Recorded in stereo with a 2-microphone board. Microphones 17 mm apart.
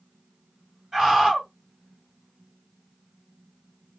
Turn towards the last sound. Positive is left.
turn(degrees=-40)  # may be behind; listen again after turning